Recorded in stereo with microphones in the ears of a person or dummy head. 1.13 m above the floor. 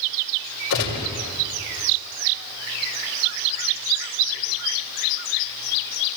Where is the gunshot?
60° left (ahead or behind), 5 m.